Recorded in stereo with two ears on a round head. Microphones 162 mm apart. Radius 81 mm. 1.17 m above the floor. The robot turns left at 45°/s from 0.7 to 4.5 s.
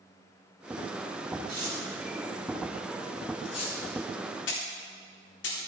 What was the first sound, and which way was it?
Tearing paper, 60° right (ahead or behind).